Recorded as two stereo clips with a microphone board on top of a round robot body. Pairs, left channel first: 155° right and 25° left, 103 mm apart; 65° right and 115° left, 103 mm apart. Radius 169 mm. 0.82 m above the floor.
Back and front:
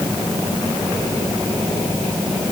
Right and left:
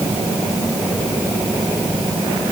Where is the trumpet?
I don't hear a trumpet.